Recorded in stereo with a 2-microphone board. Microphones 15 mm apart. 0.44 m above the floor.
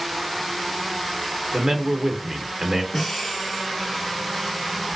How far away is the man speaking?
About 0.8 m.